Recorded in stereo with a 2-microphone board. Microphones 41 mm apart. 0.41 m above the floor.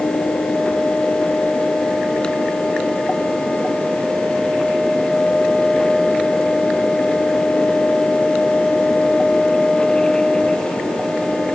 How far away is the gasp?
No gasp in this recording.